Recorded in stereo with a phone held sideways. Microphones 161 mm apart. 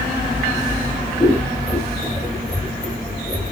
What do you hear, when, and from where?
1.2 s scissors: 5° right (ahead or behind), 2 m